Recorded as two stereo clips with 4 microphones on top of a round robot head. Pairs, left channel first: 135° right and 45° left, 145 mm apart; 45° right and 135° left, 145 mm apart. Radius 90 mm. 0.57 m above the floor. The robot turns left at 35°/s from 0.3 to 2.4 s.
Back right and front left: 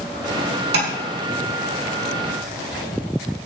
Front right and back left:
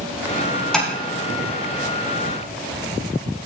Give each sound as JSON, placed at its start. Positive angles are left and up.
{"t": 0.7, "sound": "tapping", "azimuth_deg": 45, "distance_m": 4.5}